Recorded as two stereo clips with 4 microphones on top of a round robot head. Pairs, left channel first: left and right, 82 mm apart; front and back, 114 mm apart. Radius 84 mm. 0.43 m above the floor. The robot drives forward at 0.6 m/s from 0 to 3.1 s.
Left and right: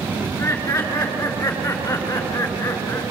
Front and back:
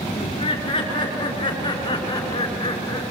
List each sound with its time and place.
0.2 s laughter: 45° left, 7 m; by 3.0 s 55° left, 5.5 m